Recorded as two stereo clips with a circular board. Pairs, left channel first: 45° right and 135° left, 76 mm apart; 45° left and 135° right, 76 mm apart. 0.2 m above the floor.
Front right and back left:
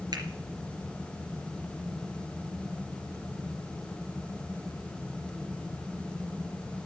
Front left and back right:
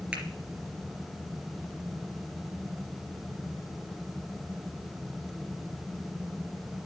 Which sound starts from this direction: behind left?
A finger snap, at 0.1 s.